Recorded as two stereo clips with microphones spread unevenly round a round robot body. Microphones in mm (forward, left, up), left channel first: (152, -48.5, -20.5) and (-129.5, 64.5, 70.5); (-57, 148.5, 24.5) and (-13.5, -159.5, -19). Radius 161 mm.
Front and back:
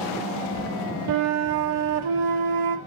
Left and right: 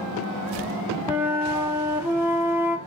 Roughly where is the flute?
Behind.